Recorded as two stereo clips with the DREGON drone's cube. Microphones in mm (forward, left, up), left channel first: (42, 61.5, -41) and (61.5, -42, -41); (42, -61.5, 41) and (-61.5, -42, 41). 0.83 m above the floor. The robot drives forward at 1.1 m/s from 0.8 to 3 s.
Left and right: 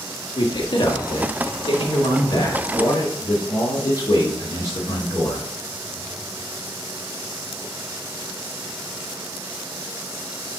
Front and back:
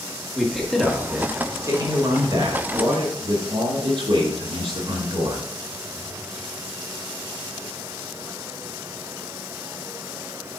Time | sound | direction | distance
0.3 | a man speaking | 75° left | 1.6 m